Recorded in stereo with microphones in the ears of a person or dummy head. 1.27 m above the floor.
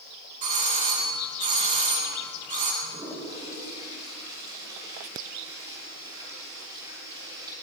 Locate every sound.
0.4 s a doorbell: 40° right (ahead or behind), 2 m
2.8 s a toilet flushing: 25° right (ahead or behind), 6 m